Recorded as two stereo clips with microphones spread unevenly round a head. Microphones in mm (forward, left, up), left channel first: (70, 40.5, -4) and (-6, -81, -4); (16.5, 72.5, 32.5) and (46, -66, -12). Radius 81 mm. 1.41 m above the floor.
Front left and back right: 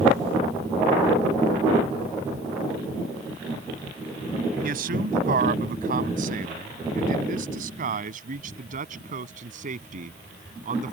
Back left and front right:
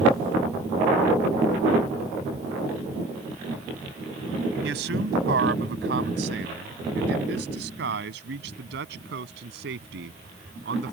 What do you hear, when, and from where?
4.6 s a man speaking: 100° right; by 10.9 s 90° right